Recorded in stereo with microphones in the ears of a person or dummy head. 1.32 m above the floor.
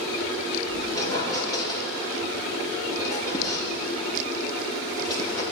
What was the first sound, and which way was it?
A squeak, 30° left (ahead or behind).